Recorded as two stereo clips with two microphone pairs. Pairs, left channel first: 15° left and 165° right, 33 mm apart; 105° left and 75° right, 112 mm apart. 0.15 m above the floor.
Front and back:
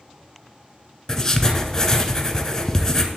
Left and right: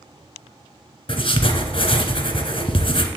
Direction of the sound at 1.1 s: 90° left.